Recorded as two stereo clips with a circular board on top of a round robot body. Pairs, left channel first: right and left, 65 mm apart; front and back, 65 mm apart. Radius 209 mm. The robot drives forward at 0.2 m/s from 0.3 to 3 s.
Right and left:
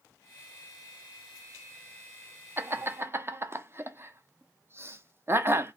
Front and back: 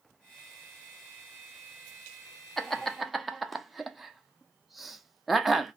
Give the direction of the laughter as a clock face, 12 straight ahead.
10 o'clock.